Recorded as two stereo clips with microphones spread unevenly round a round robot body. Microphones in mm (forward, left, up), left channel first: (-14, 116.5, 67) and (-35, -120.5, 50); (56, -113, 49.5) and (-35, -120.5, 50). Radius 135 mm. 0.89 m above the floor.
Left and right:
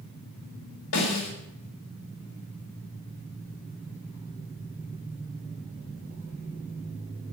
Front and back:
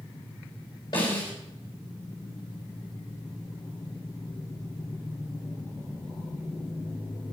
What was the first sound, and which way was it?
A snare drum, 70° left.